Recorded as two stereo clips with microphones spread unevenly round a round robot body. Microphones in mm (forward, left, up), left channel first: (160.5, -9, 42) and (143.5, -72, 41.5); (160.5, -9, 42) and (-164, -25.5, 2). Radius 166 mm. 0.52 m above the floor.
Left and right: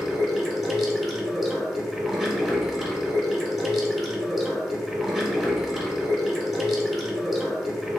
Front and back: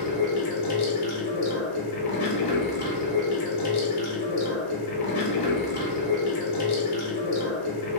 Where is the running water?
20° right, 1.2 m.